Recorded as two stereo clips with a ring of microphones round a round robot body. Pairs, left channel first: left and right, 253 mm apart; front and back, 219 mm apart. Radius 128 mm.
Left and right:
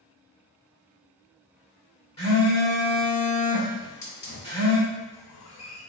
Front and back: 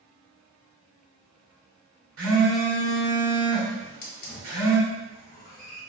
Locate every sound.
2.2 s a phone buzzing: 160° left, 1.5 m
3.8 s a hiss: 50° left, 0.9 m